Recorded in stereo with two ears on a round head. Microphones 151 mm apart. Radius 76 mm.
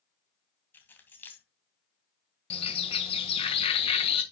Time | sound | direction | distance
0.7 | keys jangling | 15° left (ahead or behind) | 2 m
2.5 | a bird | 35° left (ahead or behind) | 1.8 m